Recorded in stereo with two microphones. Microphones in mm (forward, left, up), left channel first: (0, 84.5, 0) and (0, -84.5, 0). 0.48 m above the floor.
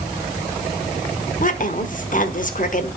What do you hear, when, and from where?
1.4 s a woman speaking: 50° left (ahead or behind), 1.2 m